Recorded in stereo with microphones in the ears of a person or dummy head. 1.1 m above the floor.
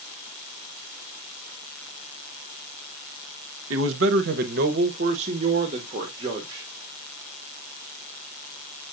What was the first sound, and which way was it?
A man speaking, 75° right (ahead or behind).